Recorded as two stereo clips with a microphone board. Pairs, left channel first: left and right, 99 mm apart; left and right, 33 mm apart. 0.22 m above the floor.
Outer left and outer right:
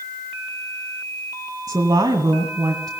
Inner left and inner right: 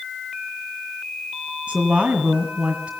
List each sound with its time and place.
1.7 s a woman speaking: 40° right (ahead or behind), 1.9 m